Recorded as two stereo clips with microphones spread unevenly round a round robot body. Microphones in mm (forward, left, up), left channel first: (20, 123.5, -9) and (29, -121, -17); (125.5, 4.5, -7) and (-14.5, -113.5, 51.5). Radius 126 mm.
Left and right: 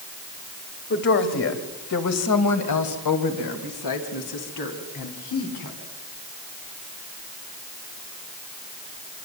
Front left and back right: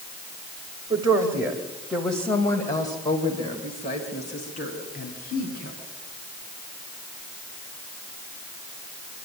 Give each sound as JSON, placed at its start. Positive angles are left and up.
{"t": 0.9, "sound": "a woman speaking", "azimuth_deg": 145, "distance_m": 2.5}